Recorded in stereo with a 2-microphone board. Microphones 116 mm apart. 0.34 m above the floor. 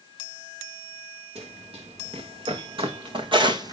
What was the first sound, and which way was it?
Running footsteps, 60° right (ahead or behind).